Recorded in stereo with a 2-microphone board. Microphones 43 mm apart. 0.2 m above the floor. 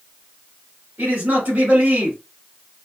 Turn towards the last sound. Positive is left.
turn(degrees=-50)  # may be behind; listen again after turning